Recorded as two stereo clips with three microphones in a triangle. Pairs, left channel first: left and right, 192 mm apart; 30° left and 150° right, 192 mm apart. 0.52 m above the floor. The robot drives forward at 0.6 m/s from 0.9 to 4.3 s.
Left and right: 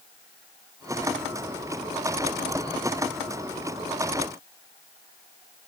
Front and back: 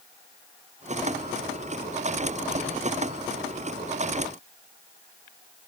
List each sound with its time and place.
Only background noise.